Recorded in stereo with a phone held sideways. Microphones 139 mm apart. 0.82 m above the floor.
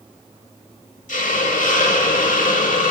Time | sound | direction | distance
1.1 | a hiss | 65° left (ahead or behind) | 1.0 m